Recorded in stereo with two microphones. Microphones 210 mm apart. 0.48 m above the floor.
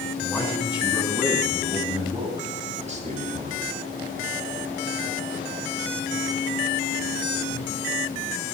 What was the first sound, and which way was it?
A man speaking, centre (ahead or behind).